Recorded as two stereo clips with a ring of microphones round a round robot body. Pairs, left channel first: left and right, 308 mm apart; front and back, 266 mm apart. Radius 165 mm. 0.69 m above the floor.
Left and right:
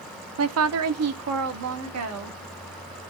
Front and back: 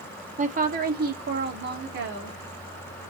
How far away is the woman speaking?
About 0.7 m.